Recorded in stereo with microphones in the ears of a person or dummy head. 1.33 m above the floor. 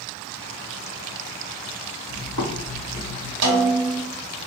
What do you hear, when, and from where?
2.1 s footsteps: 60° right (ahead or behind), 2.5 m; by 3.3 s 70° right (ahead or behind), 3.5 m
3.4 s a snare drum: 65° right (ahead or behind), 1.6 m